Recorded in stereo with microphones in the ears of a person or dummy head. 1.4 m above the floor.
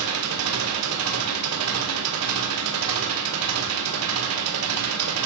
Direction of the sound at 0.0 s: 75° right (ahead or behind).